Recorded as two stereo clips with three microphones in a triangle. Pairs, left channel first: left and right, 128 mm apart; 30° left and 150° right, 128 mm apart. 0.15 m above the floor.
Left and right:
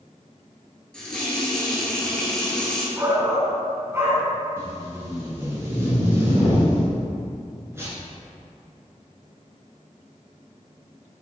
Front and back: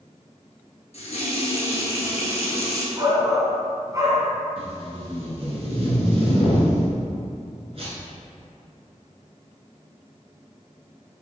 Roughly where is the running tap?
Ahead.